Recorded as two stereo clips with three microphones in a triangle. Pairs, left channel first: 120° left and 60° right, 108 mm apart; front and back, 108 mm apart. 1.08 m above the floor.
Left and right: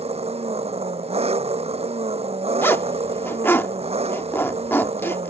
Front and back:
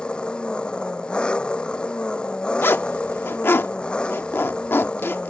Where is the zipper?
60° left.